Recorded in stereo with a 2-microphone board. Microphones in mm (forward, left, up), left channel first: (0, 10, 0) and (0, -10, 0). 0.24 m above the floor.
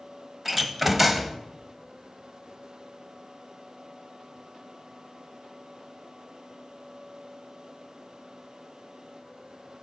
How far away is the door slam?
About 0.7 m.